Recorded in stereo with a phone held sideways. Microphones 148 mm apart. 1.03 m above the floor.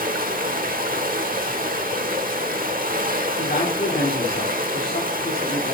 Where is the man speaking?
85° left, 2 m.